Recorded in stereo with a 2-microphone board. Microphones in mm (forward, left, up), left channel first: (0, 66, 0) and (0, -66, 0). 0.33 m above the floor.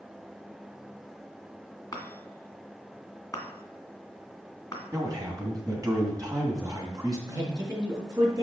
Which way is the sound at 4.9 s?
30° right (ahead or behind).